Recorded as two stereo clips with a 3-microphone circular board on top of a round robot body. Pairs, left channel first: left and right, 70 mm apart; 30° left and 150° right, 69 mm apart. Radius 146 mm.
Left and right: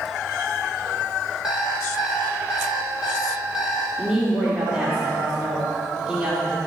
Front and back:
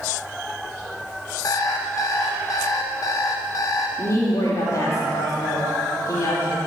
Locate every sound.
1.4 s an alarm clock: 10° right, 1.3 m
4.0 s a woman speaking: 15° right, 3 m